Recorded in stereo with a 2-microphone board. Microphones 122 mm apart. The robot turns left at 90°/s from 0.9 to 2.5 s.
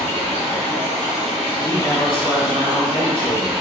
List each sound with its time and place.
0.0 s running water: 110° left, 1.7 m; by 3.6 s 35° right, 1.7 m
1.6 s a man speaking: 155° left, 1.5 m; by 3.5 s 75° left, 1.5 m